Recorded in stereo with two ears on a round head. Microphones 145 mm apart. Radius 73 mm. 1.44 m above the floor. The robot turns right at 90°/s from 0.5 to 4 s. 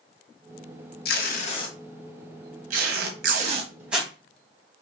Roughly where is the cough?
I don't hear a cough.